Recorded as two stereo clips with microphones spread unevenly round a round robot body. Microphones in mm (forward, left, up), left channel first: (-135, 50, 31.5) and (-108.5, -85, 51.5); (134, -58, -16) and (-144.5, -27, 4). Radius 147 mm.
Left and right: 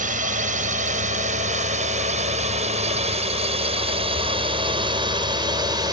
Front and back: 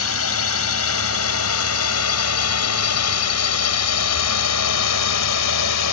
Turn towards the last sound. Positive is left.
turn(degrees=-10)